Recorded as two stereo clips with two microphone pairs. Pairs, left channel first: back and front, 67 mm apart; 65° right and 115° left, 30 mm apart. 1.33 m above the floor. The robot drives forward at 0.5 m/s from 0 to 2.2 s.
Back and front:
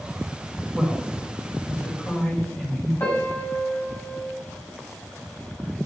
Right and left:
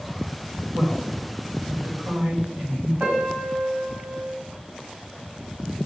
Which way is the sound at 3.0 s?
130° left.